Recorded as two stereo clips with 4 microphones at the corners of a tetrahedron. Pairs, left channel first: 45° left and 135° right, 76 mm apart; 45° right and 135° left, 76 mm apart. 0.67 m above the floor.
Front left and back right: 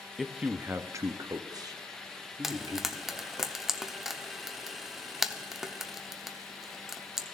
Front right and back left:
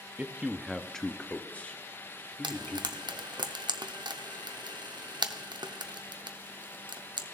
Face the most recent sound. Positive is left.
turn(degrees=140)